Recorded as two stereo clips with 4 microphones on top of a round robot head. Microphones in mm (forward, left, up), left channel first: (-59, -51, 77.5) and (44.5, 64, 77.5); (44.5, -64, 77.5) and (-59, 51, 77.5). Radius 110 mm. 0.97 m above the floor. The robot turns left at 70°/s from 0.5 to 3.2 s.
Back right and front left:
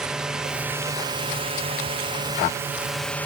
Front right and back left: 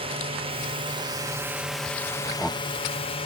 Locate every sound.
0.0 s a drone: 130° left; by 3.3 s 60° right